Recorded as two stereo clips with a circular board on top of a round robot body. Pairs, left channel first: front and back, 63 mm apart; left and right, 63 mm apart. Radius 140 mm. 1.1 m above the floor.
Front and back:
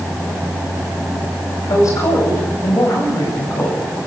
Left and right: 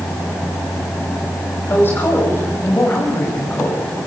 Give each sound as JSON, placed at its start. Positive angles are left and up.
{"t": 1.7, "sound": "a woman speaking", "azimuth_deg": 35, "distance_m": 9.0}